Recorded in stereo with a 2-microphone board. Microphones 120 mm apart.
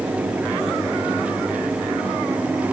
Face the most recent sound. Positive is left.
No sound to turn to.